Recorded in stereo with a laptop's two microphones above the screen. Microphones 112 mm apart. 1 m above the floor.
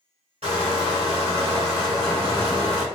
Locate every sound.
0.4 s crushing: 70° right (ahead or behind), 2.0 m